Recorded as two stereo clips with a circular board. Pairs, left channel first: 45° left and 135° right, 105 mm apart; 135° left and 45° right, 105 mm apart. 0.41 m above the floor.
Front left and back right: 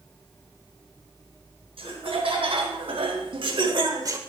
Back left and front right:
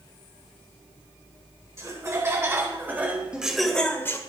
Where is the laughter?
105° right, 3 m; by 4.2 s 175° right, 1.1 m.